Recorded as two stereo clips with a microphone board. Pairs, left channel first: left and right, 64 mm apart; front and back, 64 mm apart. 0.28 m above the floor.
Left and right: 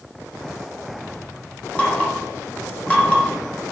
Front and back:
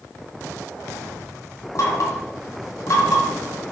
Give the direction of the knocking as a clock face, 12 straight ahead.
11 o'clock.